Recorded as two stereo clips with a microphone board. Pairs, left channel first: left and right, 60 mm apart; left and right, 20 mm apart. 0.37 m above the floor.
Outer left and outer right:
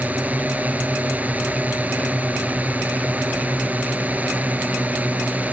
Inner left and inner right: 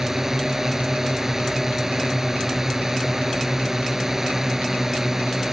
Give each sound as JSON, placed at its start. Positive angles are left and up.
{"t": 0.0, "sound": "a drone", "side_deg": -25}